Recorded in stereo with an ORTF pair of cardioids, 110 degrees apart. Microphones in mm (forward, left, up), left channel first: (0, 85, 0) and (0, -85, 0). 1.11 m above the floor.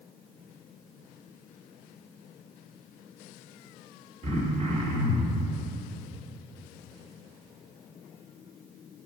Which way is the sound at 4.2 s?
40° right.